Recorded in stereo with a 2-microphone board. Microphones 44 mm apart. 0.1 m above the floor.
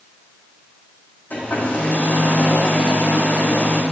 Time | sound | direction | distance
1.3 | a hair dryer | 45° left (ahead or behind) | 5 m